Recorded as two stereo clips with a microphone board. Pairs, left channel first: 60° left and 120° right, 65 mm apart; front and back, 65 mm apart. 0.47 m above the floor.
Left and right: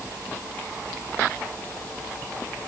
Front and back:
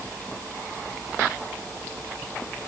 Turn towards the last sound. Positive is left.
No sound to turn to.